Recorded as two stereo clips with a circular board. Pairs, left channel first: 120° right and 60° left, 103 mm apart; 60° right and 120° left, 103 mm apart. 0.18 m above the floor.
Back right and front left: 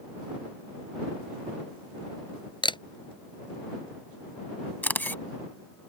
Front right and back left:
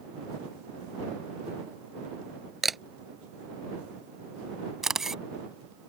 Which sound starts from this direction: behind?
A camera shutter, at 4.8 s.